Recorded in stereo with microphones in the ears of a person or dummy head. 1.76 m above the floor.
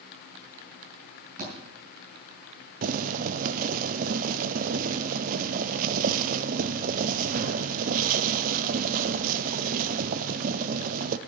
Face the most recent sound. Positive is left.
turn(degrees=-40)  # may be behind; listen again after turning